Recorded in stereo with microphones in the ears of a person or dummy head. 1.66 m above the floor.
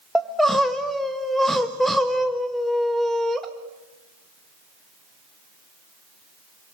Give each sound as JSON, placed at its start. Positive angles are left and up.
{"t": 0.1, "sound": "crying", "side_deg": -5, "distance_m": 1.5}